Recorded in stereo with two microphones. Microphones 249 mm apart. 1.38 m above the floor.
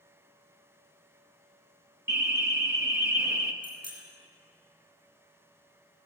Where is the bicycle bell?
85° left, 8 m.